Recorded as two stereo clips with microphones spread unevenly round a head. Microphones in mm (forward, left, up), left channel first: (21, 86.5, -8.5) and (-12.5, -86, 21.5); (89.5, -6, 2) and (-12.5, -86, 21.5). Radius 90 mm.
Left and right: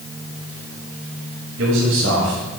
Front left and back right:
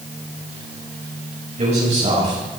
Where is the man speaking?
110° right, 9 m.